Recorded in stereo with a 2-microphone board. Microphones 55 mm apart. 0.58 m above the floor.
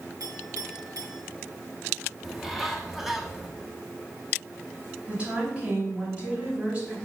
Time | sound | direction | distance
0.2 | a clink | 85° right | 3 m
2.2 | a bird | 5° right (ahead or behind) | 1.2 m
5.1 | a woman speaking | 20° right (ahead or behind) | 5 m